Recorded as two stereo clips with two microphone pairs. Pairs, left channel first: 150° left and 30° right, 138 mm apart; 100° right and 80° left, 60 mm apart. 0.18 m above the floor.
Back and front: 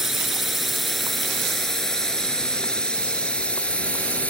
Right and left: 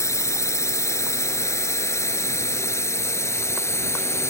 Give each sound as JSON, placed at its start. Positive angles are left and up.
{"t": 0.0, "sound": "a drone", "azimuth_deg": -115}